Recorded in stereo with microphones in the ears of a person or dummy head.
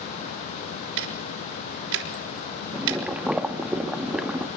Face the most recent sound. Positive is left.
turn(degrees=-5)  # may be behind; listen again after turning